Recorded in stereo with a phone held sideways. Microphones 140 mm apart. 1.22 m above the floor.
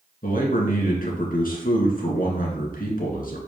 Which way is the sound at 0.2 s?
75° left (ahead or behind).